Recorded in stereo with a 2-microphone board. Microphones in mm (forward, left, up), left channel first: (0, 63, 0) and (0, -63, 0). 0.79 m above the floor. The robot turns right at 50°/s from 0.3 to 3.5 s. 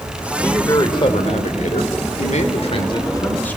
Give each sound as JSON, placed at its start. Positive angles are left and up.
{"t": 0.4, "sound": "a man speaking", "azimuth_deg": 15, "distance_m": 2.5}